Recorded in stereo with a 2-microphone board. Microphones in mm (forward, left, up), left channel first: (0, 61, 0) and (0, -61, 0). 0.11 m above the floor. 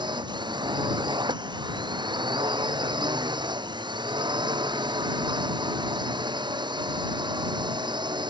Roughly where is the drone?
Right.